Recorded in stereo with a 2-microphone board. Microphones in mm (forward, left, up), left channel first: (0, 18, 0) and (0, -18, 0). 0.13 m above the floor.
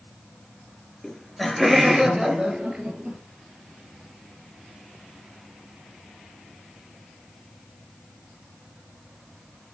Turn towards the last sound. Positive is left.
turn(degrees=-30)  # may be behind; listen again after turning